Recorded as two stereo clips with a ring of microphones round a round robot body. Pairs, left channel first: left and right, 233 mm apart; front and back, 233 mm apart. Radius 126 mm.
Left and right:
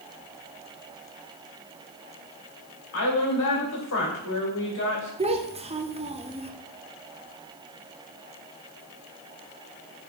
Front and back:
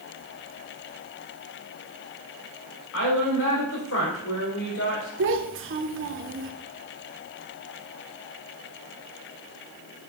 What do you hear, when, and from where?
2.9 s a woman speaking: 45° left, 3 m
5.2 s a child speaking: 155° right, 1.1 m